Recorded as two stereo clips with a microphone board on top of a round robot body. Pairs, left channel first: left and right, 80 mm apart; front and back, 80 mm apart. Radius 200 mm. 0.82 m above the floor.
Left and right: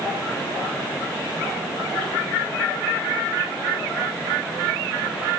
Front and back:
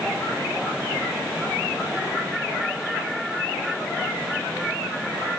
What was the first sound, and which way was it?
Only background noise.